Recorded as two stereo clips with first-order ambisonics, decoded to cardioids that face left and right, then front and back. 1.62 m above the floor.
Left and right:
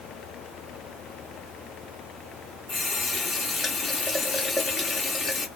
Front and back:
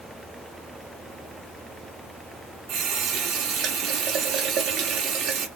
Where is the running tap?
160° left, 0.7 m.